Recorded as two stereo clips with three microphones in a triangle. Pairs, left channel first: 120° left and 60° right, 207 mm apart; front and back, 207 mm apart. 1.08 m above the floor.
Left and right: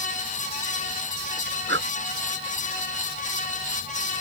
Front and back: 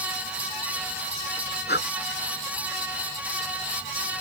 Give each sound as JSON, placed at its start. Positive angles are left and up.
{"t": 1.7, "sound": "breathing", "azimuth_deg": -35}